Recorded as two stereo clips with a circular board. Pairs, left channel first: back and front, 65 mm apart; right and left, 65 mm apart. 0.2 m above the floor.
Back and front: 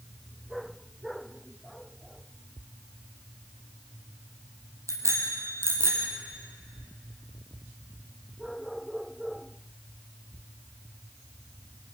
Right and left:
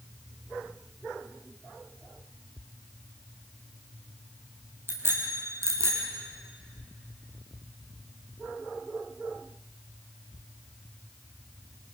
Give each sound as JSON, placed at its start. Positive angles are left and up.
{"t": 4.9, "sound": "a bicycle bell", "azimuth_deg": 35, "distance_m": 5.0}